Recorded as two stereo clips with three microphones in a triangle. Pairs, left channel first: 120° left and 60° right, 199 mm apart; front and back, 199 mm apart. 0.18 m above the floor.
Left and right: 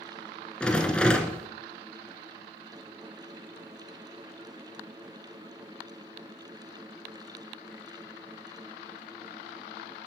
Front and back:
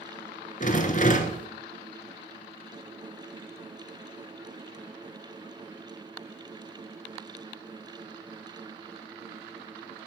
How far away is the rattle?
About 1.2 m.